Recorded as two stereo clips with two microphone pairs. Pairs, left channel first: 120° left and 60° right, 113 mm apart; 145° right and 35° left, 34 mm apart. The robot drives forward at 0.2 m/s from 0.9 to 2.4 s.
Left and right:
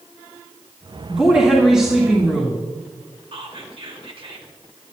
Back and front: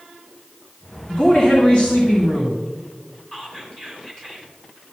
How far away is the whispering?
About 2.5 m.